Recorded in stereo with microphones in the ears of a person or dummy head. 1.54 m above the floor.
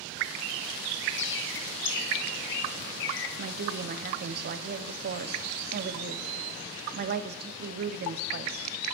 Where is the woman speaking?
50° right (ahead or behind), 0.6 m.